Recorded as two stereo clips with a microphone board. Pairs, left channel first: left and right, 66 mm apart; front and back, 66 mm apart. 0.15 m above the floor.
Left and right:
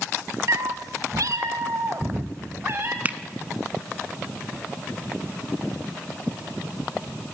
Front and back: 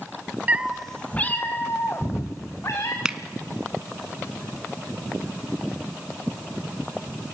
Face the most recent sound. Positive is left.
turn(degrees=-115)